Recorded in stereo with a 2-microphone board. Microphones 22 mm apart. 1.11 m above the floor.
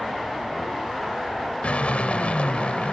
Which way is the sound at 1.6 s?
80° left.